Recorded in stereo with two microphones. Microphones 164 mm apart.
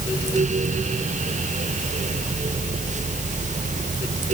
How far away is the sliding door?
I don't hear a sliding door.